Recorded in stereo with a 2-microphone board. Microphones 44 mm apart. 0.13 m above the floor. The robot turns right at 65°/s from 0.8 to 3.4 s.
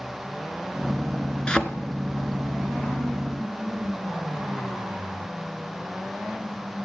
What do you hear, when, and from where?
1.5 s a thud: 20° left (ahead or behind), 0.7 m; by 1.6 s 25° left (ahead or behind), 0.7 m